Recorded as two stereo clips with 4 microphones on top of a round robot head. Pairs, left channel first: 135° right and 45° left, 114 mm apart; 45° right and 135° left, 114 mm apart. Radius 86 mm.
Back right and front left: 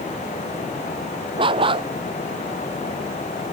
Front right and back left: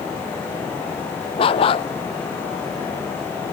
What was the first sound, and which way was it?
A dog barking, straight ahead.